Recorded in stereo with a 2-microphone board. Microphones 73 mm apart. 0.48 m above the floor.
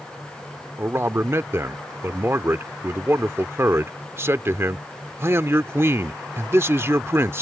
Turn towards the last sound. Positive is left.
turn(degrees=-40)  # may be behind; listen again after turning